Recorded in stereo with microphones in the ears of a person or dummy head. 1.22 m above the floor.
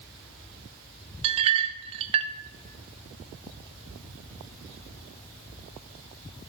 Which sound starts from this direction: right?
A clink, at 1.2 s.